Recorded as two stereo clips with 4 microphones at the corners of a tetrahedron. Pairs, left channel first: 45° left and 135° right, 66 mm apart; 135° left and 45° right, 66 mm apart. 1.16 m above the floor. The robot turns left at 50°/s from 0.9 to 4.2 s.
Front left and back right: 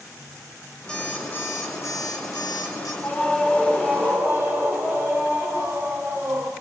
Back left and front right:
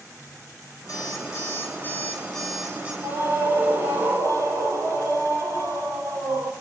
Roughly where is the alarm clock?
Behind left.